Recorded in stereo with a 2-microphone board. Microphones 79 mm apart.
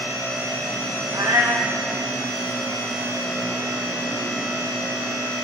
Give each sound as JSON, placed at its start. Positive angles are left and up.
{"t": 1.1, "sound": "a cat meowing", "side_deg": -60, "distance_m": 1.1}